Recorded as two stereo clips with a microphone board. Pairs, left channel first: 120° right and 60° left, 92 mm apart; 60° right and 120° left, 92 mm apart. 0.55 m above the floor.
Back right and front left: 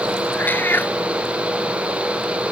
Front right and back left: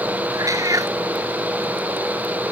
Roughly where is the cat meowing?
Behind.